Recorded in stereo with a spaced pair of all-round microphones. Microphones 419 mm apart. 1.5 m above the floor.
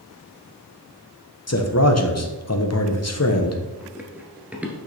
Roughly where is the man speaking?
Left.